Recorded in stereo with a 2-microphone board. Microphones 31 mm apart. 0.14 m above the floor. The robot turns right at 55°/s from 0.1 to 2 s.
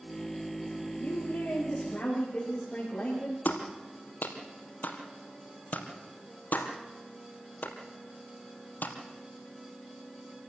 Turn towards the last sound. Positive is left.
turn(degrees=70)  # may be behind; listen again after turning